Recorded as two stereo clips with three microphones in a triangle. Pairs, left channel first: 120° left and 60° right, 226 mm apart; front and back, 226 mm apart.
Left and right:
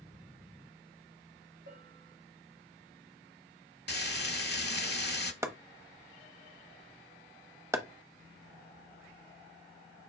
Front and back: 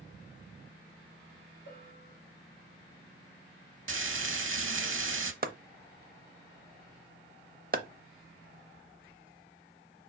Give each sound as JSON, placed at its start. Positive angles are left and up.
{"t": 1.7, "sound": "a bell", "azimuth_deg": -40, "distance_m": 4.5}
{"t": 3.9, "sound": "frying", "azimuth_deg": 160, "distance_m": 0.7}
{"t": 5.4, "sound": "chopping", "azimuth_deg": -135, "distance_m": 0.7}